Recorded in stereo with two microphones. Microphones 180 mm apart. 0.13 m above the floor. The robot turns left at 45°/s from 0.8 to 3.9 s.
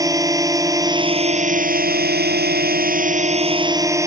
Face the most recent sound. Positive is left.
turn(degrees=-160)